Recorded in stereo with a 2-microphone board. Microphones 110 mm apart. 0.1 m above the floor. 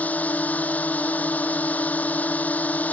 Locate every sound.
0.0 s a drone: 15° left (ahead or behind)